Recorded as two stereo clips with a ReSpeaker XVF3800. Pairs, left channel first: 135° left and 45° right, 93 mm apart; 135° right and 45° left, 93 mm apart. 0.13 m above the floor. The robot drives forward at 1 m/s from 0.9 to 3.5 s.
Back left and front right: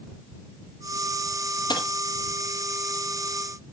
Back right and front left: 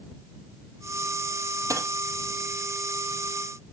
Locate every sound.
1.7 s a dropped coin: 100° left, 1.7 m; by 1.9 s 105° left, 1.7 m